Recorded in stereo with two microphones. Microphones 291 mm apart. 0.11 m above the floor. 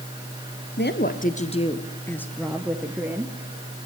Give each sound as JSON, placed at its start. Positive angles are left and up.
{"t": 0.8, "sound": "a woman speaking", "side_deg": 35, "distance_m": 1.5}